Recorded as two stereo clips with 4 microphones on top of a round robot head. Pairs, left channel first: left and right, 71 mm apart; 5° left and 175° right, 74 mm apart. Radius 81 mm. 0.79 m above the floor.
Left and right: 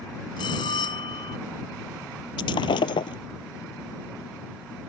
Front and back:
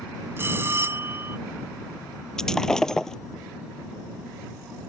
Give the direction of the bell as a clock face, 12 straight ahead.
8 o'clock.